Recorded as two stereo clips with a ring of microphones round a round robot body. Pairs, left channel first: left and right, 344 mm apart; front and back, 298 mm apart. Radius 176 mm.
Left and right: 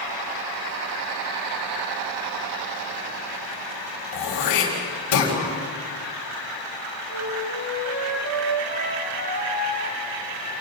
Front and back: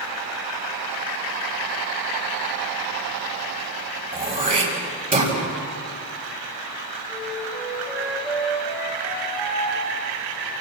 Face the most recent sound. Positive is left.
turn(degrees=-95)